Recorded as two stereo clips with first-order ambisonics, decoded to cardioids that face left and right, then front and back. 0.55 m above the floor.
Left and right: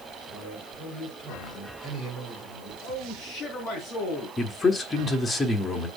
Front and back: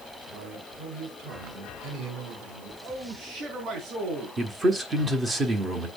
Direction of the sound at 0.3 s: 160° left.